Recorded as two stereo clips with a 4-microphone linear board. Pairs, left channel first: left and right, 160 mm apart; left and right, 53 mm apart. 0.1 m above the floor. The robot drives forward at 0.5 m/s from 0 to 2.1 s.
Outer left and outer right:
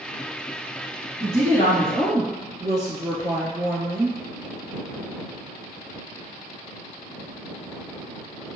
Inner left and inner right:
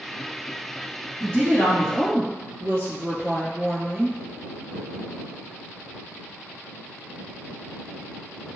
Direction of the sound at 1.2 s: 40° right (ahead or behind).